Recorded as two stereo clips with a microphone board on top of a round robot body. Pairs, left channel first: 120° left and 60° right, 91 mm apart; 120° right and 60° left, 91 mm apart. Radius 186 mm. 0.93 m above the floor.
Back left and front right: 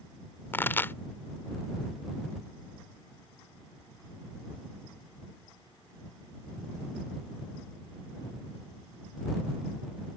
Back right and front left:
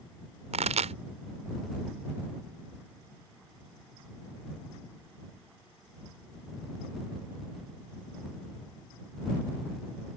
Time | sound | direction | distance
0.5 | a pop | 50° left | ?